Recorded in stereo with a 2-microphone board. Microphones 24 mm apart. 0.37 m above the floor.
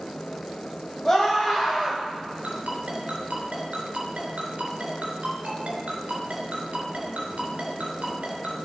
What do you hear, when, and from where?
1.1 s a scream: 25° left (ahead or behind), 2.5 m
2.4 s a ringtone: 75° right (ahead or behind), 3.5 m